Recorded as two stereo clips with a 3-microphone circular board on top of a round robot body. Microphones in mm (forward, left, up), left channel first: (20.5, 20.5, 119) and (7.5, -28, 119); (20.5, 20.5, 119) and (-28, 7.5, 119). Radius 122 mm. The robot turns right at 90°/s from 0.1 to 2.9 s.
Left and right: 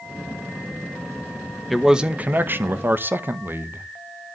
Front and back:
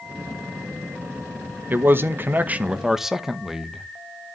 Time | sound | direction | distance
1.7 | a man speaking | 165° left | 1.2 m